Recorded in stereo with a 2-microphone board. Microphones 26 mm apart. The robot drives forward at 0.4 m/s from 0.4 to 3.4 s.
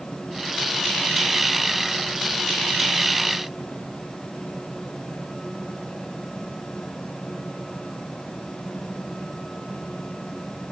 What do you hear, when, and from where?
Only background noise.